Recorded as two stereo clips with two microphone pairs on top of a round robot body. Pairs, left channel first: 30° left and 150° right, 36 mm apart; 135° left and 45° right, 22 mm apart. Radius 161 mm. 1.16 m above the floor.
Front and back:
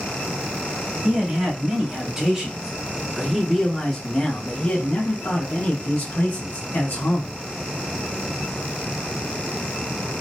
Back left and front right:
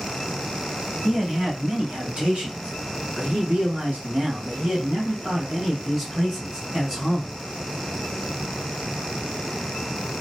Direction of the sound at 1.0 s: 90° right.